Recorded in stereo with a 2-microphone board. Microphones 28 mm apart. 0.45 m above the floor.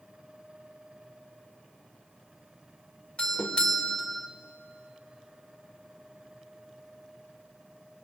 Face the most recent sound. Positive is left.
turn(degrees=30)  # may be behind; listen again after turning